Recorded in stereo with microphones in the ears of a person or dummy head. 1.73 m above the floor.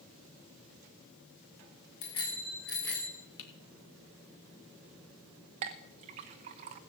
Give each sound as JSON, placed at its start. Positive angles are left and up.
{"t": 2.0, "sound": "a bicycle bell", "side_deg": 35, "distance_m": 3.5}
{"t": 3.4, "sound": "typing on a keyboard", "side_deg": 70, "distance_m": 3.0}
{"t": 5.6, "sound": "a clink", "side_deg": -25, "distance_m": 0.7}